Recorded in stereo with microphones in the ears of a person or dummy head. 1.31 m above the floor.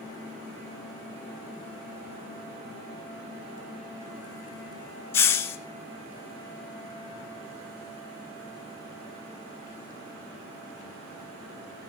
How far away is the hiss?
About 0.6 m.